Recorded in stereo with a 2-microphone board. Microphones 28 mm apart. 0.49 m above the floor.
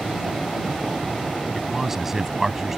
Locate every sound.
1.6 s a man speaking: 10° right (ahead or behind)